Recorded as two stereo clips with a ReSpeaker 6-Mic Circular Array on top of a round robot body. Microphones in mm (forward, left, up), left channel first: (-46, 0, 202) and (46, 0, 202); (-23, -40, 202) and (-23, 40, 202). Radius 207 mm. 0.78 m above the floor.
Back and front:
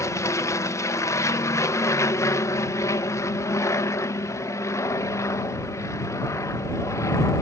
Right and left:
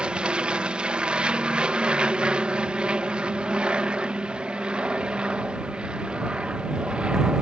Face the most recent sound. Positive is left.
turn(degrees=160)